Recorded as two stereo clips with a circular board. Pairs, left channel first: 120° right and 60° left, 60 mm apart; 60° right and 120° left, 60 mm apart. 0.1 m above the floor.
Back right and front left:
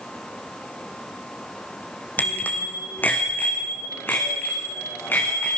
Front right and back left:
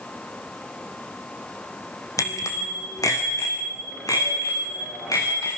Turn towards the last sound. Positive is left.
turn(degrees=-65)